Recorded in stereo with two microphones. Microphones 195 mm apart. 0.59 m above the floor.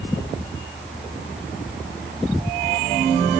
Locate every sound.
Only background noise.